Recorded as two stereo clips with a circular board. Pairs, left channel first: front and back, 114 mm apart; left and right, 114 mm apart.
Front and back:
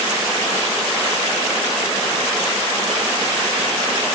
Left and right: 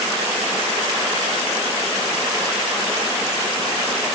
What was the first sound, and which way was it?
Only background noise.